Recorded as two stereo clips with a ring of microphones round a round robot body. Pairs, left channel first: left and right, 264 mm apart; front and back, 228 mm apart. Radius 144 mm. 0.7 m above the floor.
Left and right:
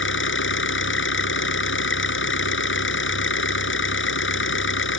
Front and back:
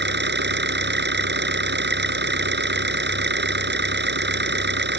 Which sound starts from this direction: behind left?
An engine running, at 0.0 s.